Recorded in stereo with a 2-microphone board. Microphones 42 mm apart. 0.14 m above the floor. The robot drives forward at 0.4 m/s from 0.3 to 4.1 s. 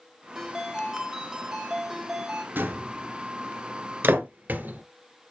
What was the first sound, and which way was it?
A ringtone, 10° right (ahead or behind).